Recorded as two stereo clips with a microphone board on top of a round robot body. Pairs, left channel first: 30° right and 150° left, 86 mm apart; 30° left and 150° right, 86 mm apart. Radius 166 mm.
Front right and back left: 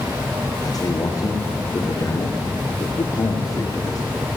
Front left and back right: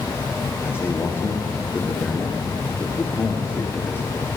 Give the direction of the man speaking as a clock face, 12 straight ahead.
1 o'clock.